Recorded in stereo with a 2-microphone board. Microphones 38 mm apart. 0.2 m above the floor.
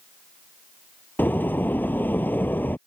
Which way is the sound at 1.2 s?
55° left (ahead or behind).